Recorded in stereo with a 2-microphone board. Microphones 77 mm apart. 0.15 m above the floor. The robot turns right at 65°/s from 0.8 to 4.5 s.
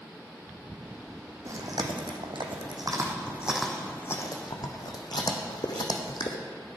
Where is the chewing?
40° right (ahead or behind), 1.4 m; by 6.4 s 55° left (ahead or behind), 1.4 m.